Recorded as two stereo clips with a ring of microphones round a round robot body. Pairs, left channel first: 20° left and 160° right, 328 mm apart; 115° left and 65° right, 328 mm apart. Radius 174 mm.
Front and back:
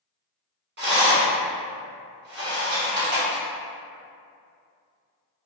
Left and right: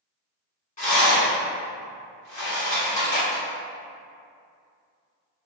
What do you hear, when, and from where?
0.8 s a rattle: 170° left, 1.6 m